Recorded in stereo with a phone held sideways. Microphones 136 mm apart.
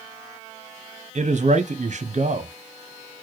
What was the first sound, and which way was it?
A man speaking, 60° right (ahead or behind).